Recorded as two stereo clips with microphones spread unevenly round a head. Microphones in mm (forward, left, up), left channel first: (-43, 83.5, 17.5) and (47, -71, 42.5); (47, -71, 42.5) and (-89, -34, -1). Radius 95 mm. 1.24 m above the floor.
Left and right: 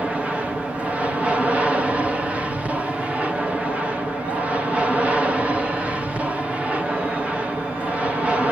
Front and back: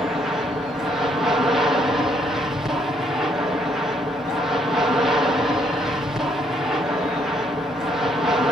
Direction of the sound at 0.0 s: 150° right.